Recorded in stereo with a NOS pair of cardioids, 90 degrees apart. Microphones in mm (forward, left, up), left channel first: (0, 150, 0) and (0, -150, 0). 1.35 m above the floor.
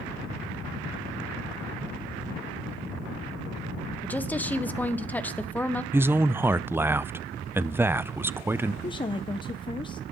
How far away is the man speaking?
About 0.5 m.